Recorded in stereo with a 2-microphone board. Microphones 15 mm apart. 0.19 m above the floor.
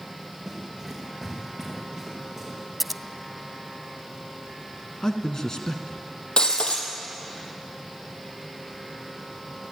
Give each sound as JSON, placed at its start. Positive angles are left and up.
{"t": 0.5, "sound": "running footsteps", "side_deg": -5, "distance_m": 8.5}
{"t": 2.8, "sound": "scissors", "side_deg": -5, "distance_m": 0.6}
{"t": 5.0, "sound": "a man speaking", "side_deg": 35, "distance_m": 1.9}
{"t": 6.4, "sound": "breaking glass", "side_deg": 65, "distance_m": 3.5}